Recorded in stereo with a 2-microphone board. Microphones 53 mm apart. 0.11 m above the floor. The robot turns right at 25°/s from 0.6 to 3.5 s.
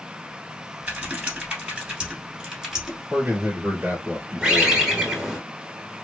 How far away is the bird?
About 1.0 m.